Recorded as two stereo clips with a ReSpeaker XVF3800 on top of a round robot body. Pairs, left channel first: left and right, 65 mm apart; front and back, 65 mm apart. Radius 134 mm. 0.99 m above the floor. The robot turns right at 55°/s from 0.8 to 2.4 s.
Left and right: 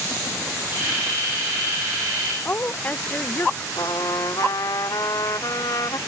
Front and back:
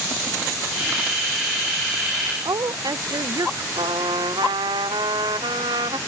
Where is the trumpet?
145° left.